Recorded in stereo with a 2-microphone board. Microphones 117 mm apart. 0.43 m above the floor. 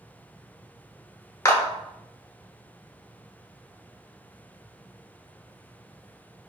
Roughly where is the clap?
Left.